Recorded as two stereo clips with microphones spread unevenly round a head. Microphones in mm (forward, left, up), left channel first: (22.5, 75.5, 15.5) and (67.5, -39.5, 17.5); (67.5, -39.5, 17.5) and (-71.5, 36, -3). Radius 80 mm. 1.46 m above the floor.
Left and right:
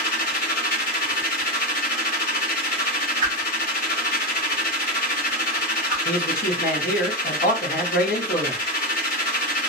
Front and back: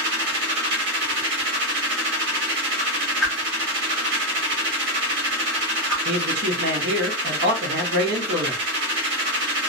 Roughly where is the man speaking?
Behind left.